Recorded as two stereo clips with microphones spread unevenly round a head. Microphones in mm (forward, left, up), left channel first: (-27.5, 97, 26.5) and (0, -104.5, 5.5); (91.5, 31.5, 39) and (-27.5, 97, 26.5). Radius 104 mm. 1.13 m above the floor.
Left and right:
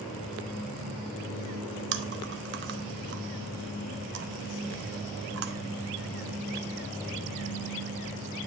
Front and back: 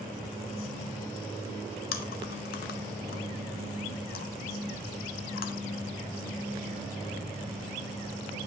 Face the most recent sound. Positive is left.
turn(degrees=-40)